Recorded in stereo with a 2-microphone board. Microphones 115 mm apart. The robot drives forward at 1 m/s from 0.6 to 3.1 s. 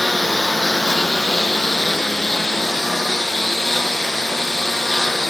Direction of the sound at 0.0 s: Centre (ahead or behind).